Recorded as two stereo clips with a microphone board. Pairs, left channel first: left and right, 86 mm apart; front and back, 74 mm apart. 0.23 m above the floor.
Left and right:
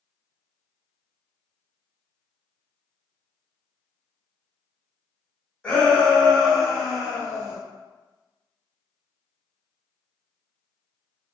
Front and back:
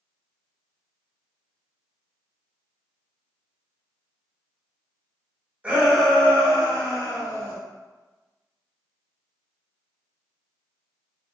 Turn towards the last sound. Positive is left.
turn(degrees=-10)